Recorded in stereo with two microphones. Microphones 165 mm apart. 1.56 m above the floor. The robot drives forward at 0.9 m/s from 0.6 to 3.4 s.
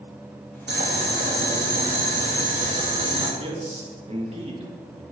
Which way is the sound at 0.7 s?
75° right (ahead or behind).